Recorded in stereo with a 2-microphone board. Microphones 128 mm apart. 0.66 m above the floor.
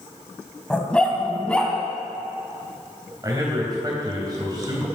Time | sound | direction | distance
0.7 | a dog barking | 10° left (ahead or behind) | 1.9 m
3.2 | a man speaking | 30° right (ahead or behind) | 3.5 m